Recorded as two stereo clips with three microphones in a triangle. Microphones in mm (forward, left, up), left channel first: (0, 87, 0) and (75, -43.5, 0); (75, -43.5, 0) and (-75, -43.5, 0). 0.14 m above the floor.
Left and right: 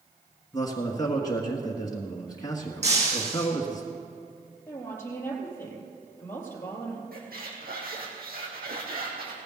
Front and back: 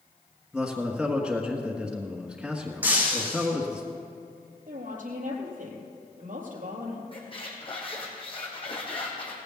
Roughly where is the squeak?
Ahead right.